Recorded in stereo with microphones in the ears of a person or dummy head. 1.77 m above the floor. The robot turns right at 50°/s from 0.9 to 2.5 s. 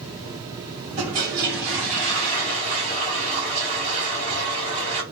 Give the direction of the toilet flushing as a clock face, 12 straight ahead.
4 o'clock.